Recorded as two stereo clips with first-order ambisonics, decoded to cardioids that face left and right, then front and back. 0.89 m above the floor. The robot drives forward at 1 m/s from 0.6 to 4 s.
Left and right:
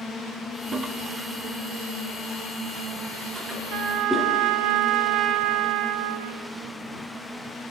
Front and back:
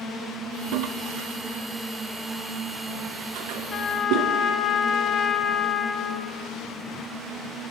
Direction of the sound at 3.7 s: 50° right.